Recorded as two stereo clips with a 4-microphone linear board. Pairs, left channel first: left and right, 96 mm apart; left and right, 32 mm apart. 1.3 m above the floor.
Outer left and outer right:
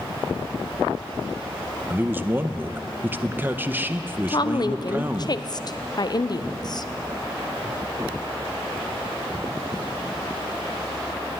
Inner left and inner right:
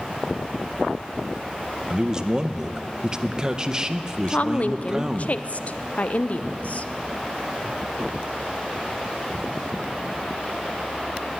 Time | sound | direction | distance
1.9 | a man speaking | 20° right (ahead or behind) | 0.6 m
4.3 | a woman speaking | 45° left (ahead or behind) | 0.6 m